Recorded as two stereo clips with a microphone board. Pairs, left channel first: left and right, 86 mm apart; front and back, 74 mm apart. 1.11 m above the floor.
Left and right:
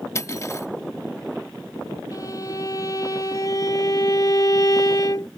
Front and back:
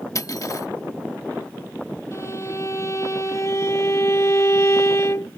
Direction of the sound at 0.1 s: 35° left.